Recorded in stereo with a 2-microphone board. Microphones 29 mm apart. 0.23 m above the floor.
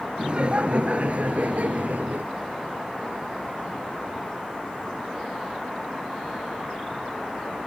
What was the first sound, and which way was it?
Laughter, 35° right (ahead or behind).